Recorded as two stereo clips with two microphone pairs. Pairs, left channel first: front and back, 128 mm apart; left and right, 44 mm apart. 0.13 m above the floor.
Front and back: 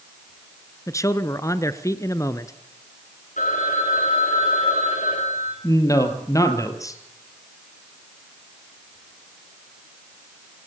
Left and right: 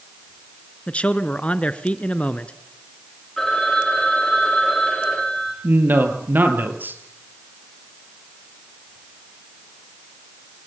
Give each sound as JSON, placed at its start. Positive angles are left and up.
{"t": 0.9, "sound": "a man speaking", "azimuth_deg": 50, "distance_m": 1.3}
{"t": 3.4, "sound": "a phone ringing", "azimuth_deg": 10, "distance_m": 9.5}
{"t": 5.6, "sound": "a man speaking", "azimuth_deg": -60, "distance_m": 3.0}